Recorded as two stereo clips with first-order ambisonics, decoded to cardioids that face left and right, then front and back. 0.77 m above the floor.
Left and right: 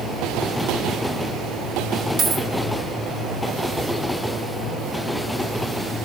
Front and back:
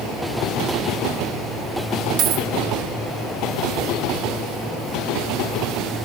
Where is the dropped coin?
140° right, 0.5 m.